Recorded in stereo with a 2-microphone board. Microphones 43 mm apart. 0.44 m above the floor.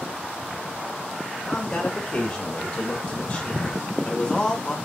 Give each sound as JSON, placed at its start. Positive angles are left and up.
{"t": 1.4, "sound": "a man speaking", "side_deg": 25, "distance_m": 1.2}